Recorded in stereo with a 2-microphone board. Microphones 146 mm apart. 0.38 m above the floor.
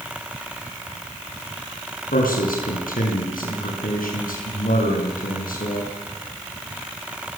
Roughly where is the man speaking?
Left.